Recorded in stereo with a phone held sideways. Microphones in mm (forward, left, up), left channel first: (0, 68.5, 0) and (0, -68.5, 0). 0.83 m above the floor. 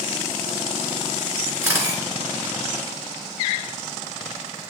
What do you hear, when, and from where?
1.6 s a camera shutter: 20° right (ahead or behind), 3 m